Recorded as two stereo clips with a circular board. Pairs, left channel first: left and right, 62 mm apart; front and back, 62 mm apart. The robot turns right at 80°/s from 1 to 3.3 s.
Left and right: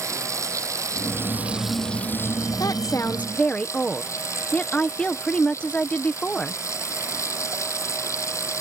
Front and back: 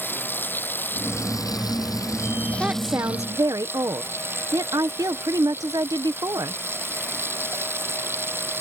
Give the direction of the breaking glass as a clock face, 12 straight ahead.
No breaking glass in this recording.